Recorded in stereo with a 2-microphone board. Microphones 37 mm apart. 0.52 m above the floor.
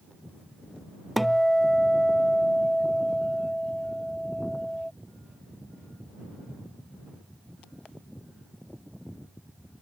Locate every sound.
1.2 s a guitar: centre (ahead or behind)